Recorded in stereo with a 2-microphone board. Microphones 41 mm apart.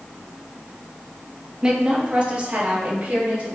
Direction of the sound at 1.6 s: 20° right (ahead or behind).